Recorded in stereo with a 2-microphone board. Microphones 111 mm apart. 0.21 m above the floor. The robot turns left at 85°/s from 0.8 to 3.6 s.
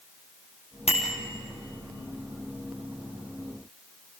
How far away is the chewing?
No chewing in this recording.